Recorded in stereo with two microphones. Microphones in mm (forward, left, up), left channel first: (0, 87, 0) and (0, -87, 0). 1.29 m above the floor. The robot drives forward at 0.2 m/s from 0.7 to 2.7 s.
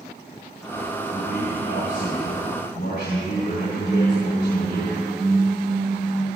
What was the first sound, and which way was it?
A man speaking, 85° left.